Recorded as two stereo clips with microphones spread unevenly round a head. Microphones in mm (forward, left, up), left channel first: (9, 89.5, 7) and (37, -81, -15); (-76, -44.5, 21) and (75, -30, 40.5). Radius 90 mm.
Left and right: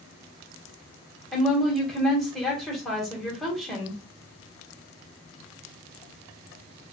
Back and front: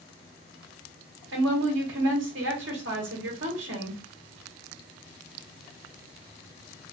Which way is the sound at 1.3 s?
10° left.